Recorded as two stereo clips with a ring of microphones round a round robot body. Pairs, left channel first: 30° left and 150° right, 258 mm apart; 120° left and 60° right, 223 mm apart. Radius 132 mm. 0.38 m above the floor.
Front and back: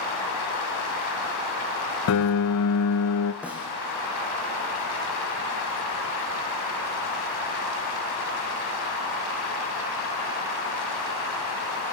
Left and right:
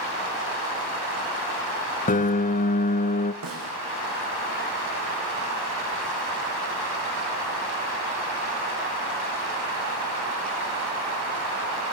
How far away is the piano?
About 1.0 m.